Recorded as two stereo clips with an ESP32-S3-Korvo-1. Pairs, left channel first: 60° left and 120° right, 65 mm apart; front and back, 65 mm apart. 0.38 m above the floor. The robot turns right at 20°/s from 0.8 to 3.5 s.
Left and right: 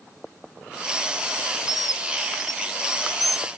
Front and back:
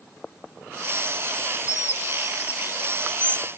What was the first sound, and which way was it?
A bird, 35° left.